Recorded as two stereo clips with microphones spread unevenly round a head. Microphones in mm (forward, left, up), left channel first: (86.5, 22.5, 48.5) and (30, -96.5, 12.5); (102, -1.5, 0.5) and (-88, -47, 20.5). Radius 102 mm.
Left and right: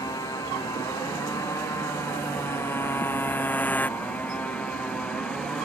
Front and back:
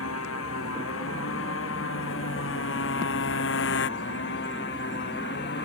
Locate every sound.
0.0 s a motorcycle: straight ahead; by 5.7 s 20° right